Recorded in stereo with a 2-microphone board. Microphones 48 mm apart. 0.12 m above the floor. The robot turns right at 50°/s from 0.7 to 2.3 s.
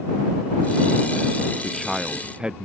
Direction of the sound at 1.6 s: 165° left.